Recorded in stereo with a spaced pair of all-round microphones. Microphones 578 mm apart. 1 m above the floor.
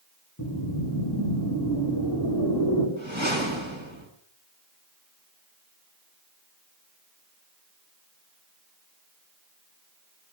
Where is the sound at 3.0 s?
50° right (ahead or behind), 7 m.